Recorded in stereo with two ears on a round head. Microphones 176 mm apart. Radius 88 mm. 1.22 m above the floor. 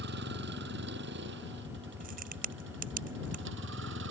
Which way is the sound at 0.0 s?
60° right (ahead or behind).